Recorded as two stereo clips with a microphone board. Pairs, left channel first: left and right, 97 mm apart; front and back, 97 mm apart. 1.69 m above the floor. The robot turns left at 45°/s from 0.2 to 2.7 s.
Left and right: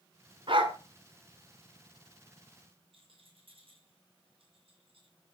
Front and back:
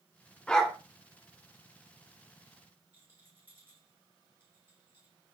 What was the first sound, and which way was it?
A dog barking, 80° right.